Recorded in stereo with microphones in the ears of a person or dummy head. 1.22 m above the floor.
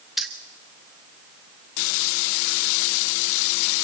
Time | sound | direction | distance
0.2 | keys jangling | 5° left (ahead or behind) | 1.3 m